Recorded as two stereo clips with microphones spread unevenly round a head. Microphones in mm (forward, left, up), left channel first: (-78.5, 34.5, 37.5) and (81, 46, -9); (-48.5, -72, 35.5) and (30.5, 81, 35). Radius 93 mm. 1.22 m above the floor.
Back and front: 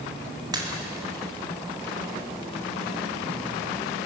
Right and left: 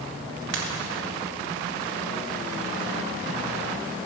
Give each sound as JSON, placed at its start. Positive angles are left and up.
{"t": 0.5, "sound": "a pop", "azimuth_deg": 70, "distance_m": 2.0}